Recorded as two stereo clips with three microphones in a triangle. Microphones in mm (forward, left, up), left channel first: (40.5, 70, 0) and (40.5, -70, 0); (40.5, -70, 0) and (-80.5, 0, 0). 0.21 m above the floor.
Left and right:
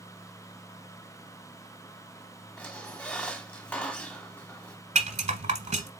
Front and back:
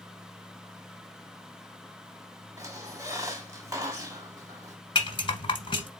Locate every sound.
2.6 s a squeak: 155° left, 1.0 m
5.0 s a rattle: 75° right, 1.1 m